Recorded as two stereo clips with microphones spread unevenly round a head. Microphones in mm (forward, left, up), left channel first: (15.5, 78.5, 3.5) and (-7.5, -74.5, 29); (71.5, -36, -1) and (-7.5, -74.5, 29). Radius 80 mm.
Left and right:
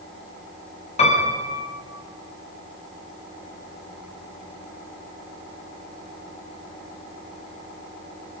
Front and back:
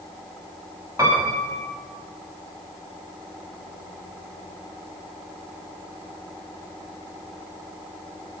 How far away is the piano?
About 6.5 m.